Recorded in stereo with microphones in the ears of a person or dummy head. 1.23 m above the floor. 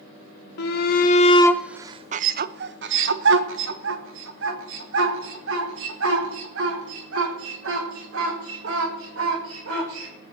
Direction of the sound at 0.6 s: 50° left (ahead or behind).